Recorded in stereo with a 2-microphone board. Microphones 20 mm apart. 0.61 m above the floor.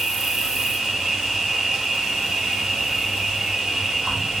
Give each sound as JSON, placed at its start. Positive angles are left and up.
{"t": 0.0, "sound": "an insect", "side_deg": -60, "distance_m": 1.4}